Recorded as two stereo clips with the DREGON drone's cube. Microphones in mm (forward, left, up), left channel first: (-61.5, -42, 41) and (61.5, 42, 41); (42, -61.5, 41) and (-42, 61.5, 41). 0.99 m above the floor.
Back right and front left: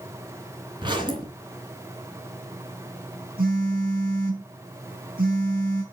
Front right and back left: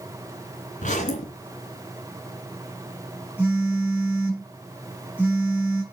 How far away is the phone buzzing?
About 4.5 m.